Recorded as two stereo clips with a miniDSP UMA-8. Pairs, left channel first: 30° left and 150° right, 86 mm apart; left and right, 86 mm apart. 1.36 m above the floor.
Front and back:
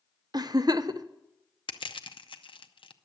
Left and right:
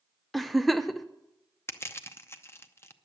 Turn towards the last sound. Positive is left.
turn(degrees=30)